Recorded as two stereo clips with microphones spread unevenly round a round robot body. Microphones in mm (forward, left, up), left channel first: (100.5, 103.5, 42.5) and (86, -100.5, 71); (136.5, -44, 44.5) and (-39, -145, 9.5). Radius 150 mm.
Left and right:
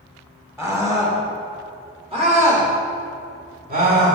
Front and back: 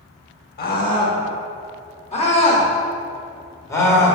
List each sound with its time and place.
0.6 s a scream: 15° right, 2.5 m; by 4.2 s 55° right, 3 m